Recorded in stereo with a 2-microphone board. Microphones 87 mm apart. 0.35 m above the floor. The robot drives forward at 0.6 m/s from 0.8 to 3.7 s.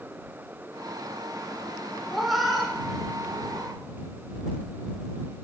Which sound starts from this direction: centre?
A cat meowing, at 2.1 s.